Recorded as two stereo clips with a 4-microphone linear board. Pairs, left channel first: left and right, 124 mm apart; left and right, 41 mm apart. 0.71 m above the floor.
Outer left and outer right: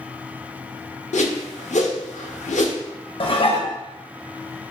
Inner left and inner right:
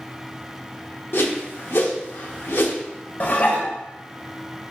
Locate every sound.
1.1 s a whoosh: 70° left (ahead or behind), 0.6 m
3.2 s dishes clattering: 45° left (ahead or behind), 0.5 m